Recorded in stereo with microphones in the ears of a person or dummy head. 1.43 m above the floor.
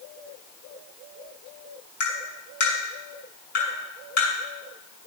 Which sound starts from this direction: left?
Tapping, at 2.0 s.